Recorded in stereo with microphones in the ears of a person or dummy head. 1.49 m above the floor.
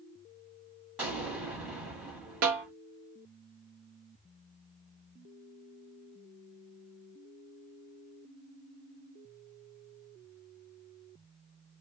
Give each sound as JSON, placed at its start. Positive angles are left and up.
{"t": 1.0, "sound": "an explosion", "side_deg": -5, "distance_m": 1.1}
{"t": 2.4, "sound": "a snare drum", "side_deg": -70, "distance_m": 1.0}